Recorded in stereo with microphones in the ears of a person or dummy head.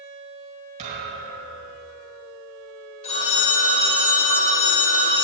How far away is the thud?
About 4.5 m.